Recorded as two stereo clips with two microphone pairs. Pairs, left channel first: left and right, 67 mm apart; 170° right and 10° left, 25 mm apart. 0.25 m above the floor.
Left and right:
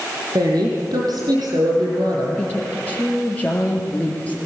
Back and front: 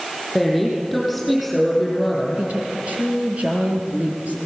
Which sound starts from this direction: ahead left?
A woman speaking, at 2.4 s.